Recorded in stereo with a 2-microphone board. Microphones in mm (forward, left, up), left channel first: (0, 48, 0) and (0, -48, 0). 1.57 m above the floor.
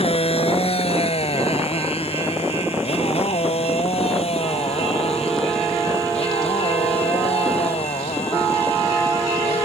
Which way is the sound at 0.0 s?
80° left.